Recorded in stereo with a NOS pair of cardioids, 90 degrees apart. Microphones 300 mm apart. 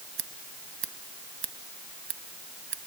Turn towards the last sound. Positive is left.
turn(degrees=-40)